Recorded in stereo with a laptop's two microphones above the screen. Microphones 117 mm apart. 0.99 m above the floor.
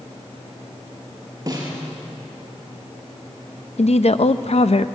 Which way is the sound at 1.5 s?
30° right (ahead or behind).